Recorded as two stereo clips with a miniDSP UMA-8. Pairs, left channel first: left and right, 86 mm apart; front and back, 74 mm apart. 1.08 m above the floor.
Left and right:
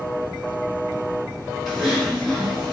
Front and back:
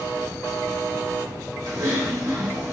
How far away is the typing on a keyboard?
About 1.1 m.